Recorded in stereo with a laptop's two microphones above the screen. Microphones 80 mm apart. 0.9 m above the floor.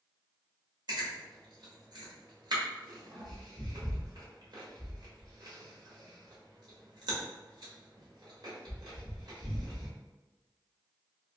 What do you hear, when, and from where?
0.9 s chewing: 60° right (ahead or behind), 1.5 m